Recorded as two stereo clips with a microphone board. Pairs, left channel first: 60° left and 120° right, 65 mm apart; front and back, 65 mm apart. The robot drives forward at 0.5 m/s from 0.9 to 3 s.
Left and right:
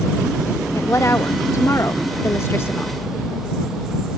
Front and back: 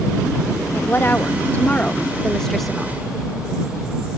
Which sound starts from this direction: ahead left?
A woman speaking, at 0.8 s.